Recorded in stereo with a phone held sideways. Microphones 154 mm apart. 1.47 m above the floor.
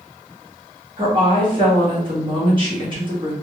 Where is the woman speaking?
30° right (ahead or behind), 1.9 m.